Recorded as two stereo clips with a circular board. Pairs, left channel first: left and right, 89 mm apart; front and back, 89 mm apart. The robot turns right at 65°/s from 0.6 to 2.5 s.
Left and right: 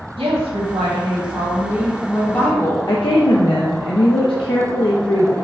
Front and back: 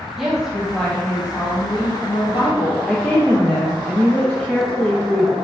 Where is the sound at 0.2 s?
95° right, 1.4 m; by 2.8 s 30° left, 1.4 m.